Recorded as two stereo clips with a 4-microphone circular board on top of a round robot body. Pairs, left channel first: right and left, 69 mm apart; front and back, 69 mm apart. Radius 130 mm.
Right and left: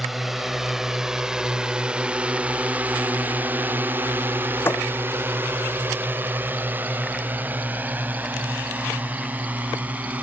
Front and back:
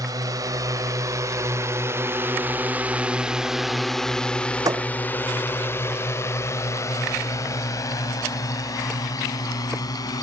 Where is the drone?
175° left; by 10.2 s 25° left.